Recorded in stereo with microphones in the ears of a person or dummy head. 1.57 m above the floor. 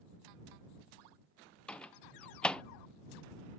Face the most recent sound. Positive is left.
turn(degrees=10)  # may be behind; listen again after turning